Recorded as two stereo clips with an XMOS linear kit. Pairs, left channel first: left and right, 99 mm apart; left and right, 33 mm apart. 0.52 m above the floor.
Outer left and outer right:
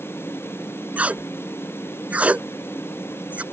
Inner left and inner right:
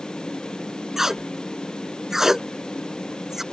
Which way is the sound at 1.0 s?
15° right (ahead or behind).